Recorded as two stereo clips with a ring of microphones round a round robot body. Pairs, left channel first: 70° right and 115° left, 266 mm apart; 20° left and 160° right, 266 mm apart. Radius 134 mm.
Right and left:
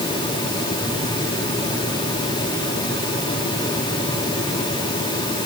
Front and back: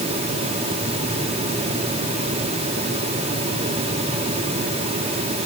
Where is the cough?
No cough in this recording.